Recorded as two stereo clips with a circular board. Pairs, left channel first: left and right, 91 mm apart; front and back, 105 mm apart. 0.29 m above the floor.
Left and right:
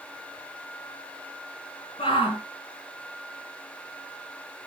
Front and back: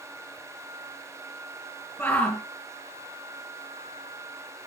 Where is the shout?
70° left, 3.5 m.